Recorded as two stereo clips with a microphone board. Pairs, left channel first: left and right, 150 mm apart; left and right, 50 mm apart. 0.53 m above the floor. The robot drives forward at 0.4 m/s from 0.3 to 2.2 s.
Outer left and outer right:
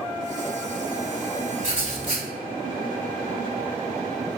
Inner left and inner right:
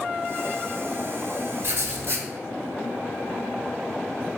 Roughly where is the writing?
Right.